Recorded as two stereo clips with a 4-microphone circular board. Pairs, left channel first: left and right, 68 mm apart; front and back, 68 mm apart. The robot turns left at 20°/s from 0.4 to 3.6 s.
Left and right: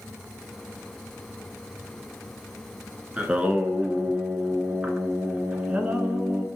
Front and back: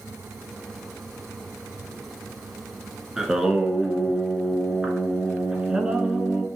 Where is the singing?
115° right, 0.5 m; by 6.5 s 120° right, 0.5 m.